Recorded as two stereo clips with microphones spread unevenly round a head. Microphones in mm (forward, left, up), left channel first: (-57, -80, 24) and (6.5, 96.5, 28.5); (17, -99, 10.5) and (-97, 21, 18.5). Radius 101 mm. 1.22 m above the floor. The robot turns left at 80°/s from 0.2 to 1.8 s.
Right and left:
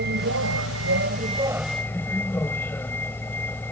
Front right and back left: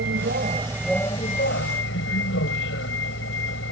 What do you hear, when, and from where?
0.0 s a vehicle: 100° left; by 3.7 s 30° right